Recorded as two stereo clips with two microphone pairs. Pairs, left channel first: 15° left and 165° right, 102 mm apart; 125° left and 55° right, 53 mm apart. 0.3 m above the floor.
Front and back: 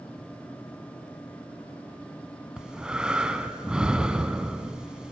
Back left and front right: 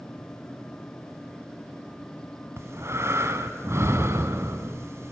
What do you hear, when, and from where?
2.6 s breathing: 85° right, 1.3 m